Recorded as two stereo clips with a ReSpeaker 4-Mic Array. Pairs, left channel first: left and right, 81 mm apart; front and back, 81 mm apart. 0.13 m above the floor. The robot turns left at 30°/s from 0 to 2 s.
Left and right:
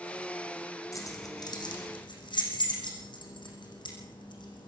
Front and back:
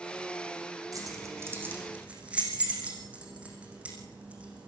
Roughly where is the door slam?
No door slam in this recording.